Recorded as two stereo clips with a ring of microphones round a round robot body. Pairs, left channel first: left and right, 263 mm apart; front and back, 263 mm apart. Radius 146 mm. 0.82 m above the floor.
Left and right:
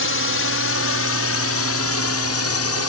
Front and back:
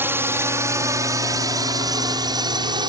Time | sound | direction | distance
0.0 | a drone | 100° left | ?